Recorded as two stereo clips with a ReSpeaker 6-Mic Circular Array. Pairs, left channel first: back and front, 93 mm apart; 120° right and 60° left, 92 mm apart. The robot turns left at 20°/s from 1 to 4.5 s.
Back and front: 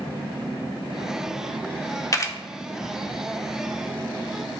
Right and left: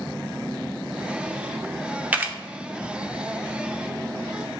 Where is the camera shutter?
130° left, 0.7 m; by 2.4 s 125° left, 0.7 m.